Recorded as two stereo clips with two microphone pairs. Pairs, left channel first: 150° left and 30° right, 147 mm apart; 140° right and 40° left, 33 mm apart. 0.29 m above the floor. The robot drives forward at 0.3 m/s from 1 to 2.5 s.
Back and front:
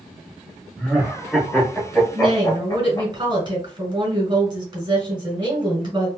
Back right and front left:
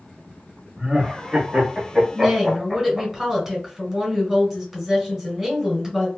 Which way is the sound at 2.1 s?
40° right.